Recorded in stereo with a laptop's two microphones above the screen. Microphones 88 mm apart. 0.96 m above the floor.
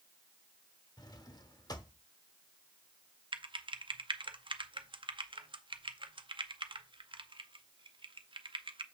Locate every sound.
1.0 s a drawer: 45° left (ahead or behind), 0.8 m
3.3 s typing on a keyboard: 70° right (ahead or behind), 0.5 m